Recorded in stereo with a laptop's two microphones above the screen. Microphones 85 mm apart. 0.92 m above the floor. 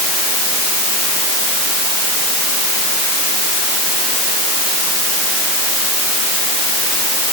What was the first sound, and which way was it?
Only background noise.